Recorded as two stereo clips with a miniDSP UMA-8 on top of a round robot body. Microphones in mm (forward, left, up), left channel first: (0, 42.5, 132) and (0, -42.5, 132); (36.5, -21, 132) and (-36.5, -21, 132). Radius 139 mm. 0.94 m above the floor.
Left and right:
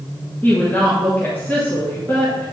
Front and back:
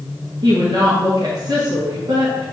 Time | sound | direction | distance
0.4 | a woman speaking | 160° left | 1.5 m